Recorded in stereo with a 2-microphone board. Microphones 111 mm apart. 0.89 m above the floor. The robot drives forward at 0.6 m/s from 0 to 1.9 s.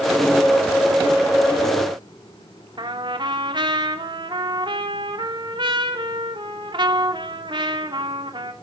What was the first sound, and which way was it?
A trumpet, 45° right (ahead or behind).